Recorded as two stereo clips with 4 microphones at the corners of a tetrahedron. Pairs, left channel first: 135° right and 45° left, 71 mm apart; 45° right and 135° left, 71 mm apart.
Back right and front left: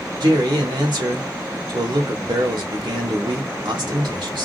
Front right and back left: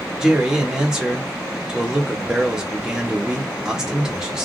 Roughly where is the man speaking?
Ahead left.